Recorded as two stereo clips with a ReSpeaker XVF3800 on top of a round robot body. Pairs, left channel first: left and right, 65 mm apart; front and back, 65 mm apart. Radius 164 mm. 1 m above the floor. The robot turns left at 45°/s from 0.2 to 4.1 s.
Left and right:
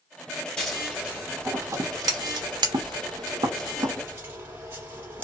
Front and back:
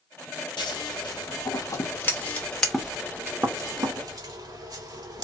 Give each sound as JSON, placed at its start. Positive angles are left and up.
{"t": 0.6, "sound": "scissors", "azimuth_deg": 10, "distance_m": 1.0}